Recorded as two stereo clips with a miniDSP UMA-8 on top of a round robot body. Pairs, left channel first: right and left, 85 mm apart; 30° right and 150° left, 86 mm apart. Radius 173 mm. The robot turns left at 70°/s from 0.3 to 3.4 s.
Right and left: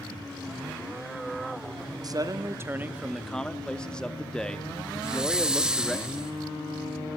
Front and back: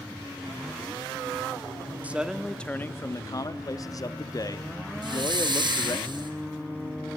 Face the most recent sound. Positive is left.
turn(degrees=170)